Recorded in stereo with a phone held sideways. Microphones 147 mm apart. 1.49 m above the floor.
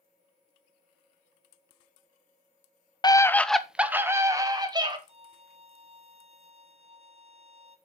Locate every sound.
3.0 s a scream: 30° left (ahead or behind), 0.6 m; by 5.0 s 30° right (ahead or behind), 1.6 m
5.1 s a violin: 45° right (ahead or behind), 1.1 m